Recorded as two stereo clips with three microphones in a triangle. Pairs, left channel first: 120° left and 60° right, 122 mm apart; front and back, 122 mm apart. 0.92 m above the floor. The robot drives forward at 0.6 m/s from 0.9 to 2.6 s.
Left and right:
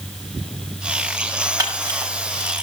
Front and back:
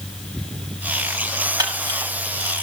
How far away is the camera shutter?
About 6 m.